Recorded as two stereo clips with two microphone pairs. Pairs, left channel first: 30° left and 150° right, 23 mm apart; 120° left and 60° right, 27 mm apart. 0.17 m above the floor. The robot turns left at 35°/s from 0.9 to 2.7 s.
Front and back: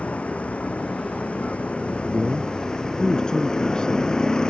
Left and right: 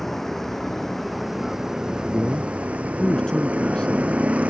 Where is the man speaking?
90° left; by 4.1 s 70° left.